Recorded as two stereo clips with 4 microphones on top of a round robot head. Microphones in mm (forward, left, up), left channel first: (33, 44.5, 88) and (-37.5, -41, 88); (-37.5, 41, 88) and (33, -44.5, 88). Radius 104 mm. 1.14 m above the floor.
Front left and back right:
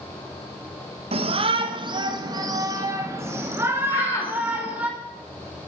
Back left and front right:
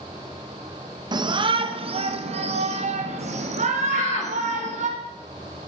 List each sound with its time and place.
1.1 s a shout: 100° right, 1.6 m; by 4.9 s 50° right, 3.5 m
3.9 s a shout: 110° left, 4 m